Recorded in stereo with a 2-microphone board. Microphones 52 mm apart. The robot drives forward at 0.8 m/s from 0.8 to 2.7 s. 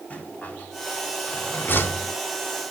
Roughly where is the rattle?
Left.